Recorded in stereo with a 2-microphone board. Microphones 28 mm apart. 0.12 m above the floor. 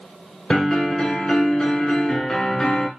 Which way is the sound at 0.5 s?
20° left (ahead or behind).